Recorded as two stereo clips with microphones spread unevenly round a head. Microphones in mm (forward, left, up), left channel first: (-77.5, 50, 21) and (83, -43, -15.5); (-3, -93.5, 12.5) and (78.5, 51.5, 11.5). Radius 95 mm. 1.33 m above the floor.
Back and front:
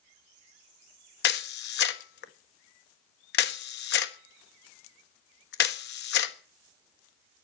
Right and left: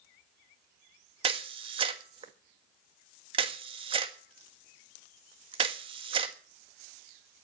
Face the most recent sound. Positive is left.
turn(degrees=125)